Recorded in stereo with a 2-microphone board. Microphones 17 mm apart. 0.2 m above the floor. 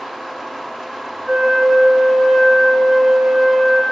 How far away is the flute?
About 2.5 m.